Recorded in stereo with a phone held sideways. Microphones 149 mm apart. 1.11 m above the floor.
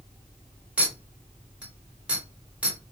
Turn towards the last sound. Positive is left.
turn(degrees=-10)  # may be behind; listen again after turning